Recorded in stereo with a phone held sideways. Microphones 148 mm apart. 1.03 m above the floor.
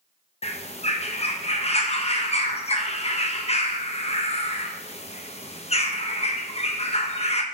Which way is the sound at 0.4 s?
40° left (ahead or behind).